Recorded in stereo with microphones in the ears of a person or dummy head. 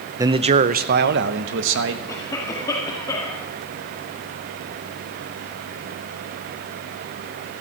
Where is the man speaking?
15° right (ahead or behind), 0.5 m; by 2.0 s 75° right (ahead or behind), 1.3 m.